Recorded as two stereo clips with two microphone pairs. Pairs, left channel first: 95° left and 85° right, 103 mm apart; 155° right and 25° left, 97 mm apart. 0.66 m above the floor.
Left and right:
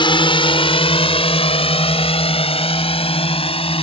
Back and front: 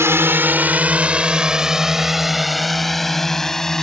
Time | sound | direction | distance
0.0 | a drone | 80° left | ?